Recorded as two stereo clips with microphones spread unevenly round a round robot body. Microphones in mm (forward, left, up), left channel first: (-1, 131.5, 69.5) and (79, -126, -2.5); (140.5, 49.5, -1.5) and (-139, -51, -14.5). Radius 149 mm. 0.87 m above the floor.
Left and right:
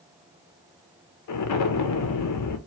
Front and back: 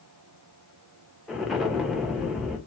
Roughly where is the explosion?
Behind left.